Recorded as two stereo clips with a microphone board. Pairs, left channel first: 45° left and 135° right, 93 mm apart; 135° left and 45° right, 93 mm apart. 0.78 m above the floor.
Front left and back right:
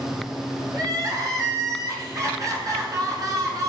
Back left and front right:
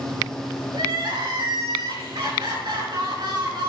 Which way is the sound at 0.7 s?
85° right.